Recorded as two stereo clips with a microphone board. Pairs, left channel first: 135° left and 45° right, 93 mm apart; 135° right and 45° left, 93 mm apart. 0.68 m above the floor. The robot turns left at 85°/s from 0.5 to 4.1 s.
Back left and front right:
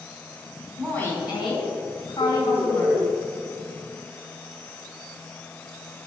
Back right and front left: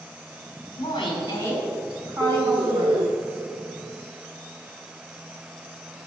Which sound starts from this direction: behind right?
A woman speaking, at 0.8 s.